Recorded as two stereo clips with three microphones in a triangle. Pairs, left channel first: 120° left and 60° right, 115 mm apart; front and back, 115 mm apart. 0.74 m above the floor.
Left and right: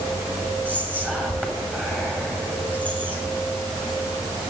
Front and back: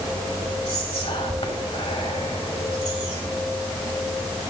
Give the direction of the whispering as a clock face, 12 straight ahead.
11 o'clock.